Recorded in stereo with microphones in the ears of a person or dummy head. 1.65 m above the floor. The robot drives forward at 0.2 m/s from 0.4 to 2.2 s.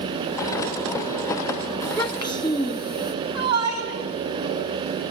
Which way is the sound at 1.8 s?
30° left (ahead or behind).